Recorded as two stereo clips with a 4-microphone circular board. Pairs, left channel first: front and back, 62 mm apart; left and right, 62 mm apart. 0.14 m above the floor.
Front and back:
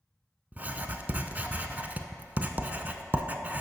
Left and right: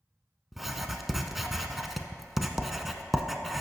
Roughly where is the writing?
Behind.